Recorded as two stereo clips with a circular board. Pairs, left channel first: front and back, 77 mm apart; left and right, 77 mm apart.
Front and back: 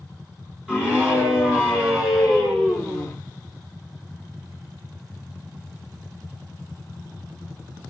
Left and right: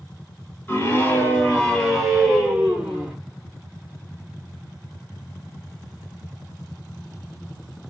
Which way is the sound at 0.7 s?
110° left.